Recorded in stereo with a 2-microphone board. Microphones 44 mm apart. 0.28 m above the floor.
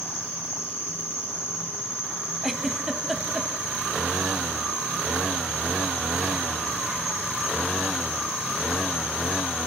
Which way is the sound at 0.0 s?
70° right (ahead or behind).